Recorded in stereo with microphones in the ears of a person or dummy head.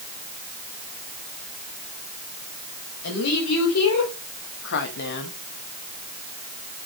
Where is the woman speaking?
85° left, 3 m; by 5.3 s 45° left (ahead or behind), 1.5 m.